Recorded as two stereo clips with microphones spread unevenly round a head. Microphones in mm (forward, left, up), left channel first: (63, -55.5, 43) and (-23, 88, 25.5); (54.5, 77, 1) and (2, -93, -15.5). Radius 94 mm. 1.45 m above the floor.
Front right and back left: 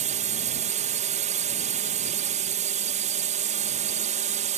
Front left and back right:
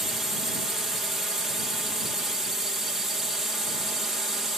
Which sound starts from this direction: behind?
A drone, at 0.0 s.